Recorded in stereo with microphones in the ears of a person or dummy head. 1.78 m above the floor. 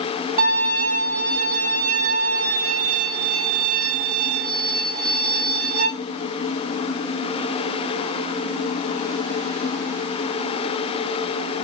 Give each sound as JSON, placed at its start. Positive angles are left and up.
{"t": 0.4, "sound": "a violin", "side_deg": -35, "distance_m": 1.8}